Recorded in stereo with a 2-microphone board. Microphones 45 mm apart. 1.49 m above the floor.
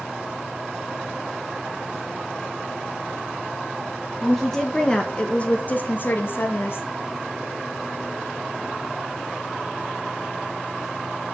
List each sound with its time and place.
4.2 s a woman speaking: centre (ahead or behind), 1.3 m; by 6.9 s 60° left (ahead or behind), 1.6 m